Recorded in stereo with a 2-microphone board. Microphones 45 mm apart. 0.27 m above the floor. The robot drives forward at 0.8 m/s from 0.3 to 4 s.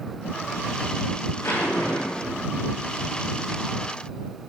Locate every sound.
1.4 s a zipper: 85° left, 8.5 m; by 2.4 s 80° left, 8.5 m